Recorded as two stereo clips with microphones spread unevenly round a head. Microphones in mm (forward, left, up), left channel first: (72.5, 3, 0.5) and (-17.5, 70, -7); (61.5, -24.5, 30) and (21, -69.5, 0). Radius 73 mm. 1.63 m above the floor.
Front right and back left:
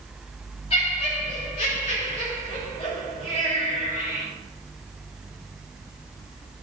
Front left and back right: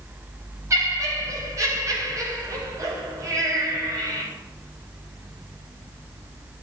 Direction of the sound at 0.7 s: 95° right.